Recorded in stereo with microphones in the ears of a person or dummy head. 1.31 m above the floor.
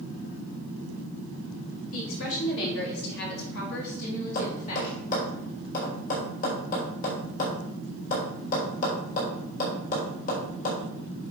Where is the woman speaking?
75° left (ahead or behind), 3 m; by 4.9 s 40° left (ahead or behind), 4.5 m.